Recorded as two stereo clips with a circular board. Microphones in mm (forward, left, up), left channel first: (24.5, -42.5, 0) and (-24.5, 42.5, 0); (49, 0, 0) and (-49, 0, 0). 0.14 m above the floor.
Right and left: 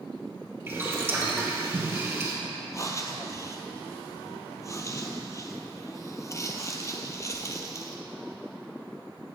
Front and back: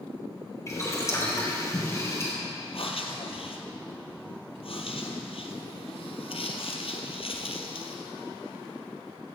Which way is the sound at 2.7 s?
5° right.